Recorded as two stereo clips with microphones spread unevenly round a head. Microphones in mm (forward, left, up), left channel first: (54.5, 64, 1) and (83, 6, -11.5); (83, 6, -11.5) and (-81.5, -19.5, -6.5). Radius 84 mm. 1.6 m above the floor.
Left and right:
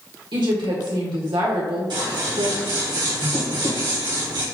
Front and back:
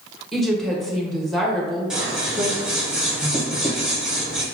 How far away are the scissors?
About 1.1 m.